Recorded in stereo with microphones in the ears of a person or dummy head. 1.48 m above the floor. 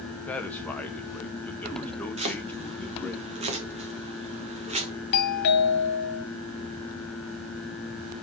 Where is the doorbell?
60° left (ahead or behind), 1.4 m.